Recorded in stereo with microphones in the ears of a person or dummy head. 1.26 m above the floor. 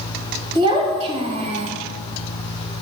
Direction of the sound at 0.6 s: 25° right (ahead or behind).